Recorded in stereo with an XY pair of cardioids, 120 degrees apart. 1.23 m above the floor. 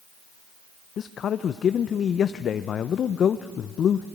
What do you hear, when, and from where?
1.0 s a man speaking: 50° left, 0.5 m